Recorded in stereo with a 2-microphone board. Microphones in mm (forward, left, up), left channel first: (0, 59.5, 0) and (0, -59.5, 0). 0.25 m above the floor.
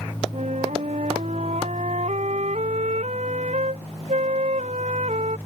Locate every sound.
0.3 s a flute: 75° right (ahead or behind)